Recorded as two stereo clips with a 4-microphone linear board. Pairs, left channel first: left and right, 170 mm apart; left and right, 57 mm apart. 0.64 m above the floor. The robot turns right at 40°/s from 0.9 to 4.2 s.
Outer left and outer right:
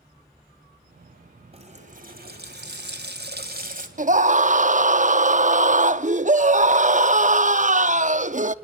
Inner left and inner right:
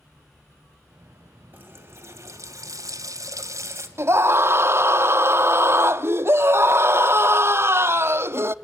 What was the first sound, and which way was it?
A running tap, 145° right.